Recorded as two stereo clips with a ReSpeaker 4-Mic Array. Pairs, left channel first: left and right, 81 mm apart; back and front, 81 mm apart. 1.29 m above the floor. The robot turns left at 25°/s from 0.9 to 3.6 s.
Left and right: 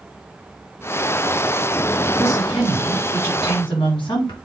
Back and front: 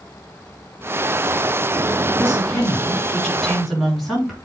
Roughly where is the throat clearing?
I don't hear throat clearing.